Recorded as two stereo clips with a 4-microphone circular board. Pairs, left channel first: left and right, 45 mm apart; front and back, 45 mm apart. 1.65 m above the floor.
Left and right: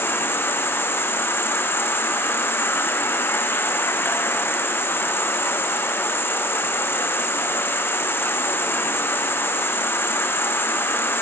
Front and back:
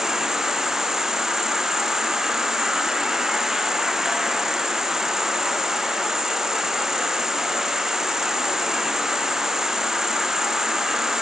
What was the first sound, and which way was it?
An insect, 100° left.